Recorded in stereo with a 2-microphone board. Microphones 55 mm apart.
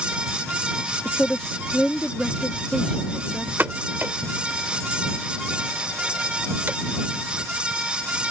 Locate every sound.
1.1 s a woman speaking: 20° left (ahead or behind)
3.6 s a pop: 40° right (ahead or behind)